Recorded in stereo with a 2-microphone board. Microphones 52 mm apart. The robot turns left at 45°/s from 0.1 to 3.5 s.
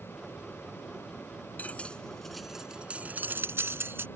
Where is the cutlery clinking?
35° left (ahead or behind); by 4.1 s 50° right (ahead or behind).